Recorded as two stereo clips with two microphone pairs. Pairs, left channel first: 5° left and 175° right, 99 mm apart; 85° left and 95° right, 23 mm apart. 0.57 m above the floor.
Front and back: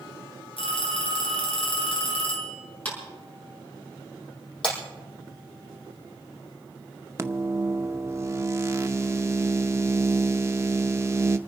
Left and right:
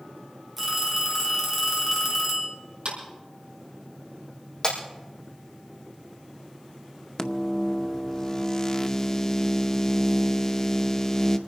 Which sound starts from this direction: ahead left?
Breaking glass, at 4.6 s.